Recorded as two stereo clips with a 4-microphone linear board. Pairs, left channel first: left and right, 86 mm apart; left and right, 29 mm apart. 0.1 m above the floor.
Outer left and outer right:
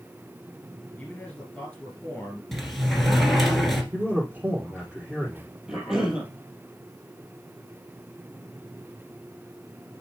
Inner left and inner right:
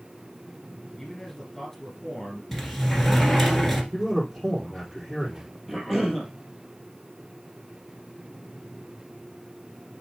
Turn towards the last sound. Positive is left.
turn(degrees=-5)  # may be behind; listen again after turning